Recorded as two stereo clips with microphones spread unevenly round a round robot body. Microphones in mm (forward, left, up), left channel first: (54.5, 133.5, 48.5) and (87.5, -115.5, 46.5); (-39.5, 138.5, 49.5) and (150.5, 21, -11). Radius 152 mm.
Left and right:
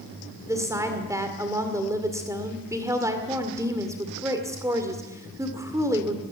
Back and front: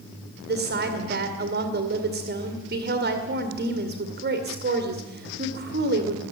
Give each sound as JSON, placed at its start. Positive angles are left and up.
{"t": 0.5, "sound": "a woman speaking", "azimuth_deg": -5, "distance_m": 2.0}